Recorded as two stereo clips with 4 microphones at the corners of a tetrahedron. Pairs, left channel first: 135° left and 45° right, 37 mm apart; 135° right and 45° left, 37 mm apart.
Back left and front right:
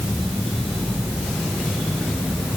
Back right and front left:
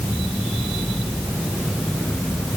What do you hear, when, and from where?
Only background noise.